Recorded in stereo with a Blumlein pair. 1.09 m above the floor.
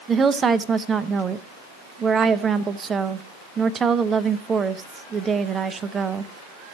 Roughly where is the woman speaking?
Ahead.